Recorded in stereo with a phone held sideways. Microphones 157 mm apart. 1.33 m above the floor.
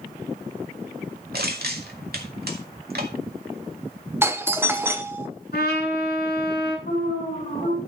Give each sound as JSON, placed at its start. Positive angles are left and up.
{"t": 1.3, "sound": "crushing", "side_deg": -75, "distance_m": 2.0}
{"t": 4.2, "sound": "a doorbell", "side_deg": -15, "distance_m": 0.9}
{"t": 5.5, "sound": "a trumpet", "side_deg": 75, "distance_m": 7.0}
{"t": 6.9, "sound": "an alarm", "side_deg": 60, "distance_m": 6.5}